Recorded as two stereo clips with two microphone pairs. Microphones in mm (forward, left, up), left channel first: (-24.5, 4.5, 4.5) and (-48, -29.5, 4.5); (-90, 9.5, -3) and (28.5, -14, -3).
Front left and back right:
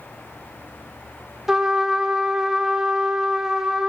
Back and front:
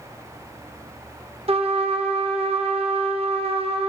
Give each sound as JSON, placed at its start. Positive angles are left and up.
{"t": 1.5, "sound": "a trumpet", "azimuth_deg": -50, "distance_m": 0.6}